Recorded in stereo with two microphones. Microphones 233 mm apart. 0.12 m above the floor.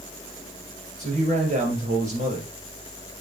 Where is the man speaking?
30° right (ahead or behind), 4 m.